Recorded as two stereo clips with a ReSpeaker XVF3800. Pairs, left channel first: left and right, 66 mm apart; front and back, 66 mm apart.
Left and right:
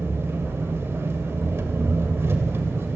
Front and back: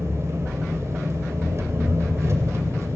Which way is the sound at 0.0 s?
140° right.